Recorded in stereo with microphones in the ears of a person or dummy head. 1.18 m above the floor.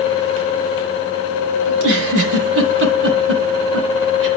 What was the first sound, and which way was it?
A giggle, 65° right (ahead or behind).